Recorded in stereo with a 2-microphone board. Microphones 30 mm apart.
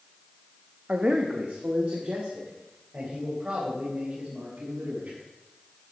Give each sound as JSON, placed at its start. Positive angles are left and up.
{"t": 0.9, "sound": "a man speaking", "side_deg": -50, "distance_m": 0.9}